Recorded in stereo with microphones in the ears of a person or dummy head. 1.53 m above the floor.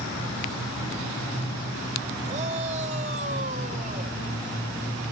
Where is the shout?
35° right (ahead or behind).